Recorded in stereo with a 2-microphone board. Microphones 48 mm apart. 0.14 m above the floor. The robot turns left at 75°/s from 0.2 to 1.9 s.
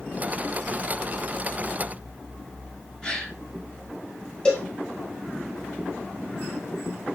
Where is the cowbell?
15° left (ahead or behind), 3 m.